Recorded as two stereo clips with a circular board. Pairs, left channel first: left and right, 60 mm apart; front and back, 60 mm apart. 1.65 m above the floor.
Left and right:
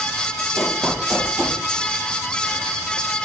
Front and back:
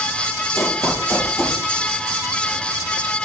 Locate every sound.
0.6 s running footsteps: 10° right, 2.5 m